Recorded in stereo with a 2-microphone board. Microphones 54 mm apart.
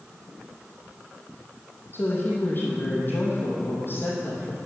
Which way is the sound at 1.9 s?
40° left (ahead or behind).